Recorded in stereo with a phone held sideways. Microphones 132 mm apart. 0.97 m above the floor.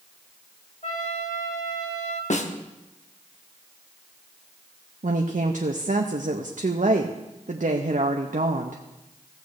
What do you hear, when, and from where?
0.8 s a trumpet: 65° left (ahead or behind), 1.4 m
2.3 s a snare drum: 65° left (ahead or behind), 0.8 m
5.0 s a woman speaking: 75° right (ahead or behind), 0.6 m